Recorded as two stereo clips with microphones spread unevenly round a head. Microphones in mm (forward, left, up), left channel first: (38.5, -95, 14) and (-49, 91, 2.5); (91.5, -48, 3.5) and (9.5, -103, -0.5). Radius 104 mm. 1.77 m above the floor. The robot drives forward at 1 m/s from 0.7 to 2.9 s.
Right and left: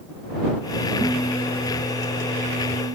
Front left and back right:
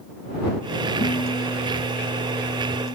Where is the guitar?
20° left; by 2.9 s 65° left.